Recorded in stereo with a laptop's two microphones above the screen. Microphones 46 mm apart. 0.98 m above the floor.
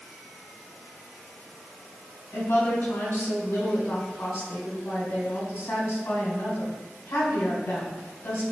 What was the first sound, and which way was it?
A woman speaking, 60° left (ahead or behind).